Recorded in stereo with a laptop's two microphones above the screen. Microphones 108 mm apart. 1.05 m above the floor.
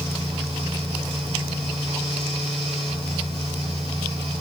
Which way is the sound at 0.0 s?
65° right (ahead or behind).